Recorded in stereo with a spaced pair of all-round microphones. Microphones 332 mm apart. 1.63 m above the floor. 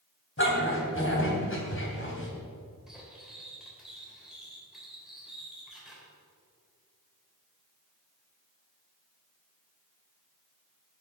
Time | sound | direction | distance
0.4 | a dog barking | 35° left (ahead or behind) | 3 m
2.9 | cutlery clinking | centre (ahead or behind) | 3.5 m